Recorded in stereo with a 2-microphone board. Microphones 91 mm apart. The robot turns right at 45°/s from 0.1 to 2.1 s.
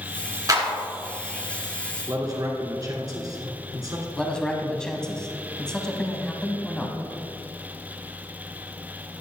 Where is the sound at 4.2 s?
10° left (ahead or behind), 1.0 m.